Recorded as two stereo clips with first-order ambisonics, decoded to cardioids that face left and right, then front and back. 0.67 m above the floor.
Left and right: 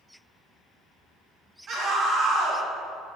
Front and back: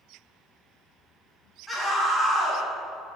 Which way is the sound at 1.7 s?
80° right.